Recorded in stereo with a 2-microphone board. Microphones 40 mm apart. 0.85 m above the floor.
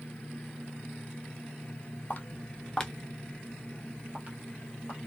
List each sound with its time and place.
2.1 s footsteps: 35° left (ahead or behind), 0.9 m; by 5.0 s 55° right (ahead or behind), 1.5 m